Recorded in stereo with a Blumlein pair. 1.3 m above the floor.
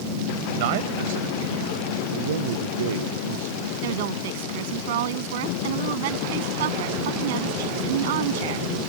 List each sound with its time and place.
0.6 s a man speaking: 50° right
2.1 s a man speaking: 60° right
3.8 s a woman speaking: 55° right